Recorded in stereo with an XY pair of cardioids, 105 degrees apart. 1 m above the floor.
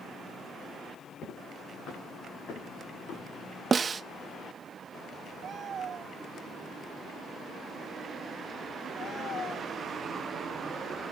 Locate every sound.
1.2 s footsteps: 60° left, 8 m; by 3.2 s 70° left, 5.5 m
3.7 s a snare drum: 35° right, 0.5 m